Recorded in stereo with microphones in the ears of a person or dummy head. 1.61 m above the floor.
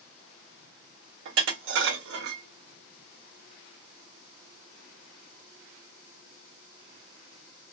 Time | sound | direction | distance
1.2 | dishes clattering | 60° right (ahead or behind) | 1.4 m